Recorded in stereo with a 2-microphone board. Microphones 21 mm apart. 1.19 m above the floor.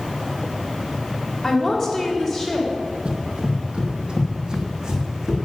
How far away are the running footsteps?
About 2 m.